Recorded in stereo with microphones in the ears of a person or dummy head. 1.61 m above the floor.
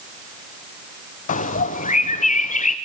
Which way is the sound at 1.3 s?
45° left (ahead or behind).